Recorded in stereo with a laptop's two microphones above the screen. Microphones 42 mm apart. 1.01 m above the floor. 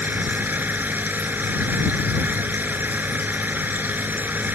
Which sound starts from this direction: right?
A machine running, at 0.0 s.